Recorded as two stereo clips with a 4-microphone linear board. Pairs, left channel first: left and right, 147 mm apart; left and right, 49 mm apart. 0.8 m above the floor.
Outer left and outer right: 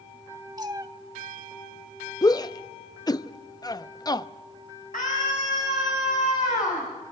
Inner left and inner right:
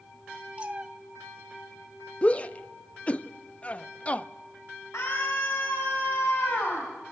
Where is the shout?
25° left (ahead or behind), 0.6 m.